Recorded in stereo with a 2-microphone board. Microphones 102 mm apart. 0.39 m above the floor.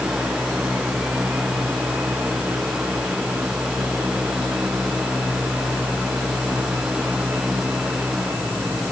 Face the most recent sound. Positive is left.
No sound to turn to.